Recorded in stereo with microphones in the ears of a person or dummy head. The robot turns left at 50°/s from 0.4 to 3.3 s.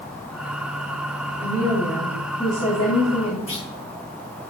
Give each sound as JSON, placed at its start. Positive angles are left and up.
{"t": 1.4, "sound": "a woman speaking", "azimuth_deg": -155, "distance_m": 2.5}
{"t": 3.5, "sound": "a clunk", "side_deg": 35, "distance_m": 4.5}